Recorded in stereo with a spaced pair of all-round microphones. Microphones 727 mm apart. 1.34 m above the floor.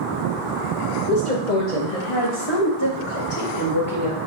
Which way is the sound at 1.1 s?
85° left.